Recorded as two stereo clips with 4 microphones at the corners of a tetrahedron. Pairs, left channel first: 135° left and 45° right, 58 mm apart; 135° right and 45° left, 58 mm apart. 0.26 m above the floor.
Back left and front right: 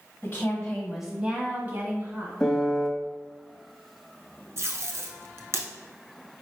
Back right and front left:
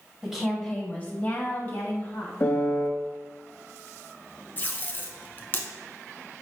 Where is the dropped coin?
No dropped coin in this recording.